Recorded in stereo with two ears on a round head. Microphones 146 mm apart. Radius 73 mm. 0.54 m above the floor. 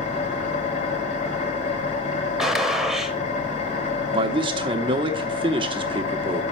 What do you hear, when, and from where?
0.0 s an engine running: 45° left (ahead or behind), 1.5 m
2.4 s a gunshot: centre (ahead or behind), 0.9 m
4.1 s a man speaking: 30° right (ahead or behind), 0.9 m